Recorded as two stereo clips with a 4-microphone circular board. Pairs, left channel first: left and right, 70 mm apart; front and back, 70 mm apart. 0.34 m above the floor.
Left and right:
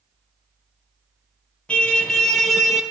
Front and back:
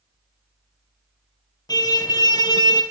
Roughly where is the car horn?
Ahead.